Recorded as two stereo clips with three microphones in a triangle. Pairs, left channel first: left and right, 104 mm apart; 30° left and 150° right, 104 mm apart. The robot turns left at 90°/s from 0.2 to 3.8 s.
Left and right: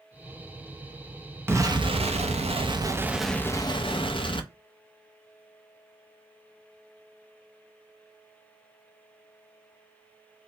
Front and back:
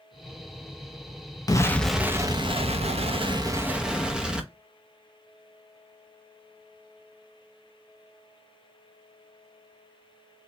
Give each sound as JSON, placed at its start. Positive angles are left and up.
{"t": 1.5, "sound": "an explosion", "azimuth_deg": -25, "distance_m": 0.5}